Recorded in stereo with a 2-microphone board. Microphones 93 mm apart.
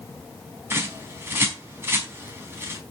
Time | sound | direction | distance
0.7 | a bird | 25° right (ahead or behind) | 3.5 m